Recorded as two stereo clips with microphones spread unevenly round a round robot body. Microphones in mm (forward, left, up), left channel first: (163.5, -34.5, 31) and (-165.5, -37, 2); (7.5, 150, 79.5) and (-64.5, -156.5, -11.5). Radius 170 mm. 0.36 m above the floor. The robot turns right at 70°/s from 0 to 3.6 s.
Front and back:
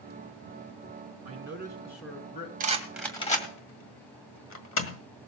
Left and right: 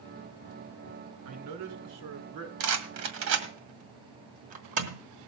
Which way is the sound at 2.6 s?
120° right.